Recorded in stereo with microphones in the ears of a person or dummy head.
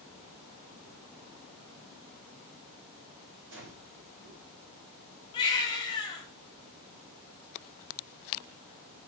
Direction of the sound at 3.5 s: 75° right (ahead or behind).